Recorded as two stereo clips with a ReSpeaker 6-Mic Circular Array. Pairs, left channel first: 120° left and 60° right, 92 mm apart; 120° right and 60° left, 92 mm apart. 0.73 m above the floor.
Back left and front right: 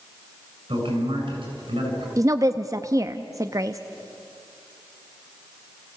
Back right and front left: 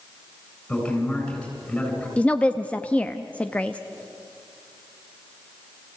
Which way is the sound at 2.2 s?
55° right.